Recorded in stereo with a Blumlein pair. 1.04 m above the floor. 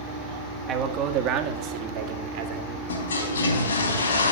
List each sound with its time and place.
0.7 s a man speaking: 30° right, 1.4 m; by 2.8 s 45° right, 2.5 m
2.9 s a toilet flushing: 70° left, 3.5 m